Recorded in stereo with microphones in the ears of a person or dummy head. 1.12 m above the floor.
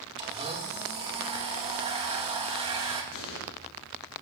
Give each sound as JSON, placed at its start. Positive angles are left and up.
{"t": 0.2, "sound": "a blender", "side_deg": -25, "distance_m": 2.0}
{"t": 3.1, "sound": "an explosion", "side_deg": 60, "distance_m": 5.0}